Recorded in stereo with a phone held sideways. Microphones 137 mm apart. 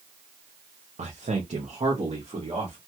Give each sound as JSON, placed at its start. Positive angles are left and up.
{"t": 1.0, "sound": "a man speaking", "side_deg": -60, "distance_m": 0.5}